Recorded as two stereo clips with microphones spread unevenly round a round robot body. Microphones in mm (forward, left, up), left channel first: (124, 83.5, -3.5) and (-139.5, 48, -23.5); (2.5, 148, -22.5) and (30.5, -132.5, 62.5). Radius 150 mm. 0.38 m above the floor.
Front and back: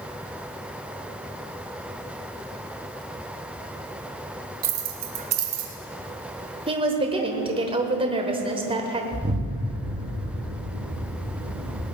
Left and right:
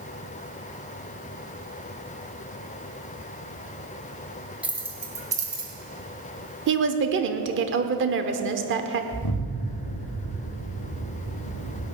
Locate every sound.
4.6 s keys jangling: straight behind, 1.8 m; by 5.7 s 165° right, 2.5 m
6.7 s a woman speaking: 125° right, 1.0 m
9.1 s an explosion: 125° left, 4.5 m